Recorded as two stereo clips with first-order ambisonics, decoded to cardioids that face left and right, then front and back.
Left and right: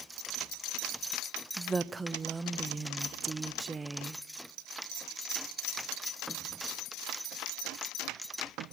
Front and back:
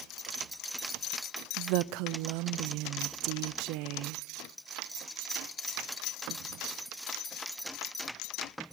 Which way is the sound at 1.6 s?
165° right.